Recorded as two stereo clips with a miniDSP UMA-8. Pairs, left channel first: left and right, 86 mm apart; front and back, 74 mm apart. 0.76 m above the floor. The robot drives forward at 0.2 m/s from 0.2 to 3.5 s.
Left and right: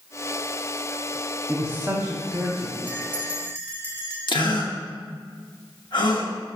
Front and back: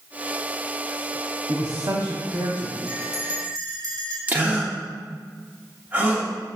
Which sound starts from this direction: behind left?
A gasp, at 4.3 s.